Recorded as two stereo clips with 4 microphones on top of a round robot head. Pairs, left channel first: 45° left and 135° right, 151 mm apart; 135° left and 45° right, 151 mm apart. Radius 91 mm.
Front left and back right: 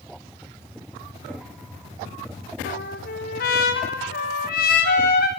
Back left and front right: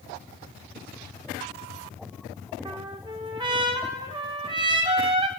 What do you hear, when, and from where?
2.6 s a trumpet: 15° left, 4 m